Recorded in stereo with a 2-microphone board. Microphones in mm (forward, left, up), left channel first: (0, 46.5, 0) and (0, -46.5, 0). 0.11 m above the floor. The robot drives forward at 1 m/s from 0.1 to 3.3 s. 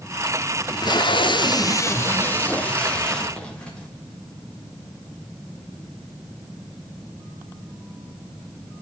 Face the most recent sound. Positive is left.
turn(degrees=10)  # may be behind; listen again after turning